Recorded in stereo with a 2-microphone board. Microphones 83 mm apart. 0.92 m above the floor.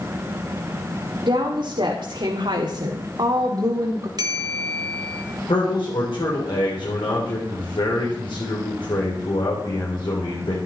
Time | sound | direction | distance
1.2 | a woman speaking | 70° right (ahead or behind) | 2 m
4.2 | a bell | 55° right (ahead or behind) | 1.9 m
5.5 | a man speaking | 75° left (ahead or behind) | 3.5 m